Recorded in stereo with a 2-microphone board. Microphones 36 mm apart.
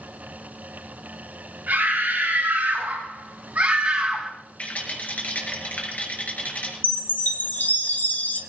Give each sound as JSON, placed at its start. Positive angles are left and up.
{"t": 1.7, "sound": "a scream", "side_deg": -85, "distance_m": 4.5}
{"t": 4.6, "sound": "a rattle", "side_deg": 45, "distance_m": 4.5}
{"t": 6.8, "sound": "a chime", "side_deg": 55, "distance_m": 1.8}